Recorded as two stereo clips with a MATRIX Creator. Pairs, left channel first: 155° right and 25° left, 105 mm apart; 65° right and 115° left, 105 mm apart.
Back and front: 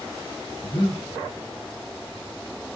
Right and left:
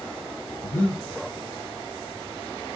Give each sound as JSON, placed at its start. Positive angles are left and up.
{"t": 0.6, "sound": "breathing", "azimuth_deg": -115, "distance_m": 1.6}